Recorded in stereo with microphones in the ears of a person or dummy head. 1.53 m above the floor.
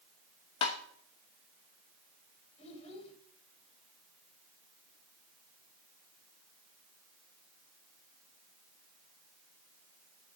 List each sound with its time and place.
0.6 s tapping: 25° left (ahead or behind), 1.0 m
2.6 s a child speaking: 35° left (ahead or behind), 3.5 m